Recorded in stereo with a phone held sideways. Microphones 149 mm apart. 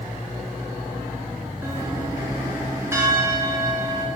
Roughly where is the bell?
Centre.